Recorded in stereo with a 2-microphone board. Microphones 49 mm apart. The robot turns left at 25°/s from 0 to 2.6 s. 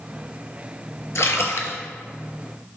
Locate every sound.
1.1 s a splash: 80° left, 0.6 m; by 1.8 s 70° left (ahead or behind), 0.6 m